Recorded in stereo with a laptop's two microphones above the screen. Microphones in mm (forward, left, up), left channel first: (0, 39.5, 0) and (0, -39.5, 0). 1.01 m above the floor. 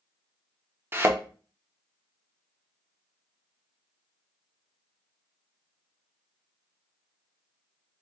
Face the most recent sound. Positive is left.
turn(degrees=-25)  # may be behind; listen again after turning